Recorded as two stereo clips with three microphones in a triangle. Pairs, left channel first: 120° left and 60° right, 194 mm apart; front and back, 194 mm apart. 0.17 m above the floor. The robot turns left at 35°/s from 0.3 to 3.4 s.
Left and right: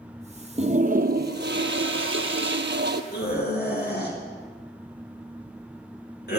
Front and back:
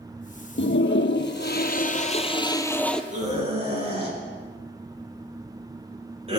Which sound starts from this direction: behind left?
A scream, at 3.1 s.